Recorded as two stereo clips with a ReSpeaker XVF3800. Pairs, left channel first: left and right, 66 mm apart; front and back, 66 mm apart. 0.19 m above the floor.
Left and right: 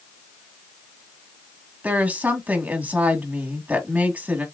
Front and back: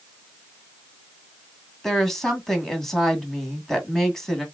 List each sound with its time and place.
1.8 s a woman speaking: 75° right, 1.7 m